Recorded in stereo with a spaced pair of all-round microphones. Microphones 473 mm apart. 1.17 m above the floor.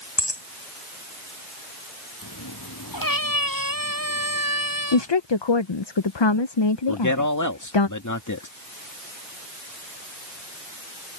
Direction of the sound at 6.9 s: 40° left (ahead or behind).